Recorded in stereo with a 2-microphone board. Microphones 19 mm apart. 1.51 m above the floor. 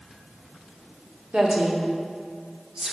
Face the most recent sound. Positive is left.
turn(degrees=-50)  # may be behind; listen again after turning